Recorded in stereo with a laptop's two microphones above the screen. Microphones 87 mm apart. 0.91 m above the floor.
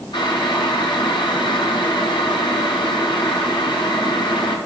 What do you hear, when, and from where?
0.1 s boiling: 65° left (ahead or behind), 1.8 m